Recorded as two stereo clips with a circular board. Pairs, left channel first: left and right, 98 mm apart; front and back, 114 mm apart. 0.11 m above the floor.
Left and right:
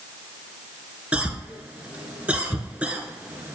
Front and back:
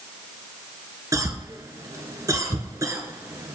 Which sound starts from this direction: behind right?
A cough, at 1.1 s.